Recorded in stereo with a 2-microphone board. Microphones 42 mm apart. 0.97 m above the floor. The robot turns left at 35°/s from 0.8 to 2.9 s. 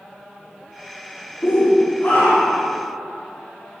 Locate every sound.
1.4 s a shout: 70° left, 2 m; by 2.7 s 25° left, 2 m